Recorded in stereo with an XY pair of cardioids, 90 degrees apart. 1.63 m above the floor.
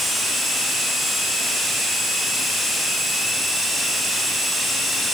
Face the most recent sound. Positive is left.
No sound to turn to.